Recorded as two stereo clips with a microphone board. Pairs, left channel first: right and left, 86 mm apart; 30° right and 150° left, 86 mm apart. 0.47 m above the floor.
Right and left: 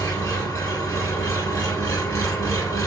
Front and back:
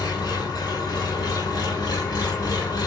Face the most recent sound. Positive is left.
turn(degrees=-50)